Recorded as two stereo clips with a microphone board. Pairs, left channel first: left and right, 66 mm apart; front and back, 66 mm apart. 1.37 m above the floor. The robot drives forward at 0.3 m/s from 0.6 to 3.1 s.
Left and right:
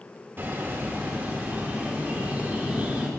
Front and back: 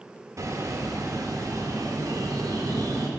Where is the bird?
145° right, 1.4 m; by 3.1 s 155° right, 2 m.